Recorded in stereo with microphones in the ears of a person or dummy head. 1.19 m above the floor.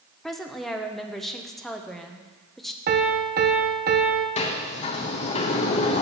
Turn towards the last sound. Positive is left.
turn(degrees=40)  # may be behind; listen again after turning